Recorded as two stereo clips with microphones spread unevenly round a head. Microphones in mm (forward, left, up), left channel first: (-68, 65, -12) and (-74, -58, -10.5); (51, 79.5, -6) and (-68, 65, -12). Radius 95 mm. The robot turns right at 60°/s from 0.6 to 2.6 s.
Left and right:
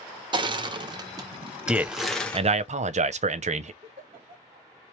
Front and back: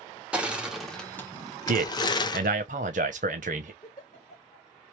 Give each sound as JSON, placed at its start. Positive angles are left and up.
{"t": 0.3, "sound": "crushing", "azimuth_deg": -90, "distance_m": 0.5}
{"t": 1.7, "sound": "a man speaking", "azimuth_deg": 180, "distance_m": 0.6}
{"t": 3.8, "sound": "a giggle", "azimuth_deg": -40, "distance_m": 1.0}